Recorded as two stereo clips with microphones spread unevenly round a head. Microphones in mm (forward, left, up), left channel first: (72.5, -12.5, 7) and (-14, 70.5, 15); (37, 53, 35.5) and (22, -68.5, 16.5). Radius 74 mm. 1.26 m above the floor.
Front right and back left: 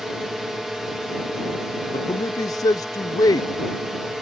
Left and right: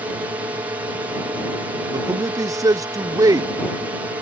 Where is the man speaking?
75° right.